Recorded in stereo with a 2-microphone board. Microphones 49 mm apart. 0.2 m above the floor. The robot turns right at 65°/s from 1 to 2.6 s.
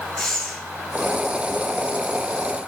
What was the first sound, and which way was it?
Breathing, 10° left (ahead or behind).